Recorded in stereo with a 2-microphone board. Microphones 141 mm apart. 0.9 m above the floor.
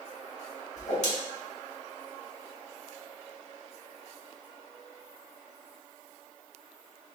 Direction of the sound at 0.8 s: 60° left (ahead or behind).